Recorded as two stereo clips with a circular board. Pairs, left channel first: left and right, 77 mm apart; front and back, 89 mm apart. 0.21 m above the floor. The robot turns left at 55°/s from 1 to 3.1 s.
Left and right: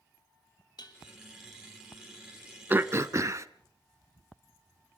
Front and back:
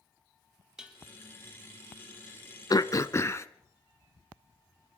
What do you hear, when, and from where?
0.8 s dishes clattering: 100° left, 4 m
2.7 s throat clearing: 30° right, 0.9 m; by 3.5 s 50° right, 0.9 m